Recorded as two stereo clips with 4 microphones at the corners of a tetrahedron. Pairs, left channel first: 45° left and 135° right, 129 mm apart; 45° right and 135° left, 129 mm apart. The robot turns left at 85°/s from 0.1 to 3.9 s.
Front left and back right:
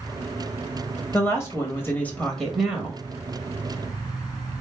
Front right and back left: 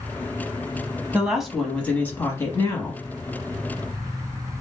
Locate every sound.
1.1 s a woman speaking: 70° left, 0.9 m; by 3.0 s 85° right, 0.9 m